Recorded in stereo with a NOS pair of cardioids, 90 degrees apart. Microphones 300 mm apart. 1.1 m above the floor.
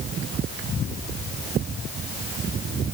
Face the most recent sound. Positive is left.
No sound to turn to.